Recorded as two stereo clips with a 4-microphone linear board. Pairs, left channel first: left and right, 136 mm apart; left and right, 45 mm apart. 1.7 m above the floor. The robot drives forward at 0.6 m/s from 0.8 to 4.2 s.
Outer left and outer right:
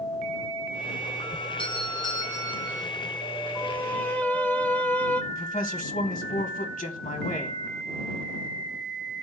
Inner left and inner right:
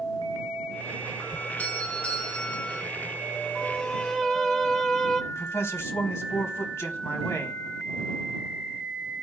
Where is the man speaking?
90° left, 1.9 m.